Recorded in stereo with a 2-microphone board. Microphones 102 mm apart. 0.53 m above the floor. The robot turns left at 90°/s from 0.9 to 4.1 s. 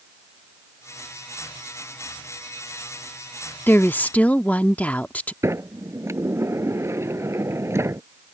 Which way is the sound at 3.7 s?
20° left (ahead or behind).